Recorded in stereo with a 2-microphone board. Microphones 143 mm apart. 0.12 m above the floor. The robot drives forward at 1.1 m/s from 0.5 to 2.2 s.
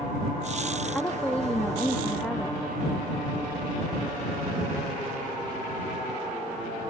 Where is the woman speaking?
10° left (ahead or behind); by 2.6 s 5° left (ahead or behind).